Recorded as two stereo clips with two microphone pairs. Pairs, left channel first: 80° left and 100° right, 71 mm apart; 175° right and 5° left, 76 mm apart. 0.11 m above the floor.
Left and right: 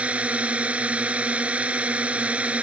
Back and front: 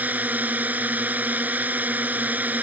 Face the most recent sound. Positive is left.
turn(degrees=-45)